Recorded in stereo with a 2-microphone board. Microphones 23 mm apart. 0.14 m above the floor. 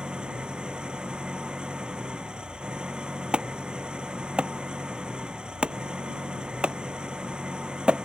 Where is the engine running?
40° right (ahead or behind).